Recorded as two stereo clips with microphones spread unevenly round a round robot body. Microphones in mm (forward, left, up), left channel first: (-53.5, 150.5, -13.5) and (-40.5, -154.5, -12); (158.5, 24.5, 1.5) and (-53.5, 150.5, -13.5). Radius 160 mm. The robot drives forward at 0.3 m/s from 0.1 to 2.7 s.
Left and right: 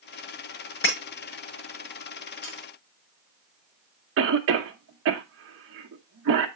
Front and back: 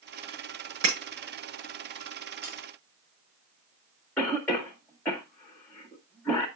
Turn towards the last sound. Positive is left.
turn(degrees=-115)